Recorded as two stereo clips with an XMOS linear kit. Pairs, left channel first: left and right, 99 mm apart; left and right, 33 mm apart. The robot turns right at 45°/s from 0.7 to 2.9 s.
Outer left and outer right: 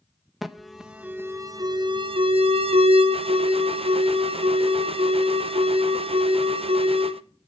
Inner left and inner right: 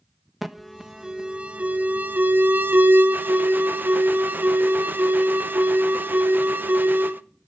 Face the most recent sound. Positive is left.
turn(degrees=-80)